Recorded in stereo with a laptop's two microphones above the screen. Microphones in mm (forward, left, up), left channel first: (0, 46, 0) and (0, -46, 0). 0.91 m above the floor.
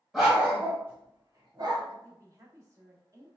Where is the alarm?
No alarm in this recording.